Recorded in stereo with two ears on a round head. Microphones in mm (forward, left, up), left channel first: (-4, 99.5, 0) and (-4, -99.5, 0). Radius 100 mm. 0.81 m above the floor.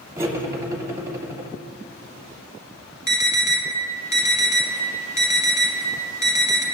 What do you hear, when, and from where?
0.2 s cutlery clinking: 15° right (ahead or behind), 0.8 m
3.1 s an alarm: 15° right (ahead or behind), 1.1 m